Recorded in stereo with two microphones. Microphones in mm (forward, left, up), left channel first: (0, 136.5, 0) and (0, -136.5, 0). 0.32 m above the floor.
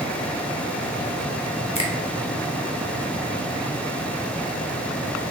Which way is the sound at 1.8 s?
25° left (ahead or behind).